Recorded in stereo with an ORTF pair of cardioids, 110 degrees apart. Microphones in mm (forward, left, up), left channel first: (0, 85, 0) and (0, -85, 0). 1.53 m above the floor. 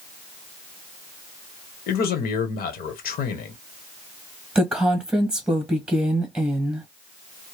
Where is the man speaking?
60° left, 1.3 m.